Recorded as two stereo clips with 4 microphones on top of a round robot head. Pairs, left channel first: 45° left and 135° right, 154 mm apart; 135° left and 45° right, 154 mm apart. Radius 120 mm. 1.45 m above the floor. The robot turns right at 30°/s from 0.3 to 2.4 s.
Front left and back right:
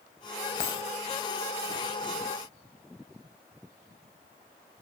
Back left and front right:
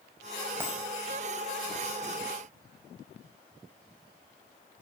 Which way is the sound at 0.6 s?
30° left.